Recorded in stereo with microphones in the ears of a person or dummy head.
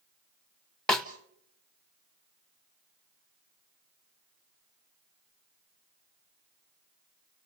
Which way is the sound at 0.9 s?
5° left (ahead or behind).